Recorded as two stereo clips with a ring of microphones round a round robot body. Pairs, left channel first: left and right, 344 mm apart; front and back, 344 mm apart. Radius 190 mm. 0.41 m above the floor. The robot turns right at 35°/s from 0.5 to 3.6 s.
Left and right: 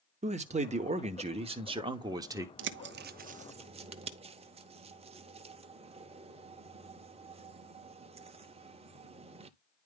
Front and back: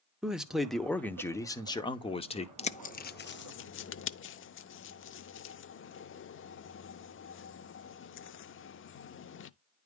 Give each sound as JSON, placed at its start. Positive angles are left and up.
{"t": 0.2, "sound": "a man speaking", "azimuth_deg": -95, "distance_m": 0.9}
{"t": 2.6, "sound": "a bird", "azimuth_deg": -65, "distance_m": 0.6}